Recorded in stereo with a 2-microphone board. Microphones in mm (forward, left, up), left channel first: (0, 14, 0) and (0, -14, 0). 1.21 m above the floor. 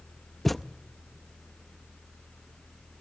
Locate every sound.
0.5 s a thud: 5° left (ahead or behind), 0.5 m